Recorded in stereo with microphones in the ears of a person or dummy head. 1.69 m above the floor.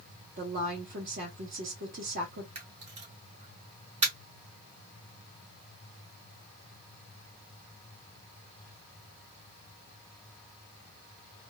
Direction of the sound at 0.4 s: 45° right (ahead or behind).